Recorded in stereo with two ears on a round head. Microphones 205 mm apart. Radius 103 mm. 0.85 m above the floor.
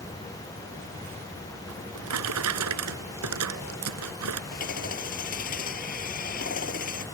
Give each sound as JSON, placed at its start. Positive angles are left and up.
{"t": 1.7, "sound": "a drawer", "side_deg": -80}
{"t": 4.5, "sound": "hammering", "side_deg": 40}